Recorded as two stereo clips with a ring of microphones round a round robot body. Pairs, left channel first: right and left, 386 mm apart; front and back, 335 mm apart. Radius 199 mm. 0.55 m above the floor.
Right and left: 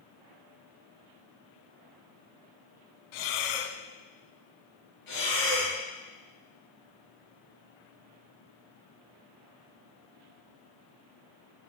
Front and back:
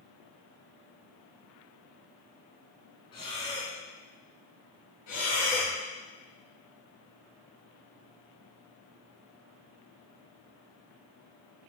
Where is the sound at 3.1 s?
80° right, 0.9 m.